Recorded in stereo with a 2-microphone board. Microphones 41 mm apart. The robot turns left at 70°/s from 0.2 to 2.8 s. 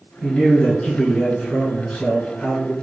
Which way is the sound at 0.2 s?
10° right (ahead or behind).